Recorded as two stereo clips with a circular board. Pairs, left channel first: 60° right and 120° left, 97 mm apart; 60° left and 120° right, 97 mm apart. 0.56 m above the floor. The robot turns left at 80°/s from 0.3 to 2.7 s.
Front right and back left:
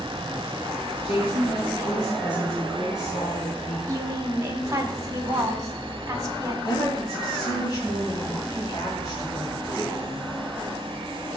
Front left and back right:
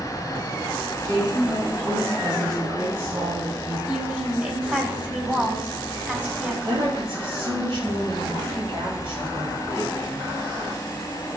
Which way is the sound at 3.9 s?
170° left.